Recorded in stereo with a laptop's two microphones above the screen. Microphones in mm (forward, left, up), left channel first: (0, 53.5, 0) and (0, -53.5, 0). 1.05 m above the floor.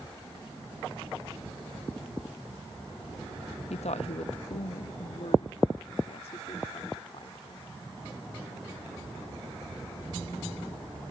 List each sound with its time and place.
3.7 s a woman speaking: 75° left (ahead or behind); by 7.7 s 55° left (ahead or behind)